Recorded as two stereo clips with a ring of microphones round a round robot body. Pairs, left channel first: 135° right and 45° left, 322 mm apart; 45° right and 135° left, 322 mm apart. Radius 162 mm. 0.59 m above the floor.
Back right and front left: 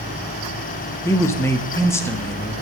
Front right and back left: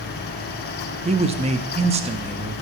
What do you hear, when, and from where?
1.1 s a man speaking: 160° left, 0.6 m